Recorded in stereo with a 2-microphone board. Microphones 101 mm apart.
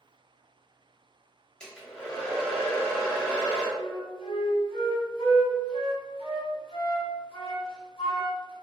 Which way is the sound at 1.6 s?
10° left (ahead or behind).